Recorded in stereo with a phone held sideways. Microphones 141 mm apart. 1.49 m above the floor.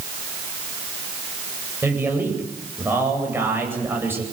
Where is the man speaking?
15° right (ahead or behind), 9 m.